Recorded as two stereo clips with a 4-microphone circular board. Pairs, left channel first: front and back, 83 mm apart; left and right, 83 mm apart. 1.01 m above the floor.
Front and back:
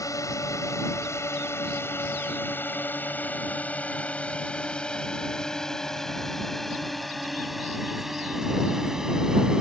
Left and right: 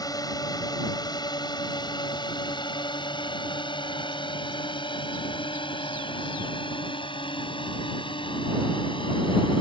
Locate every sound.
0.0 s a drone: 50° left; by 9.6 s 100° left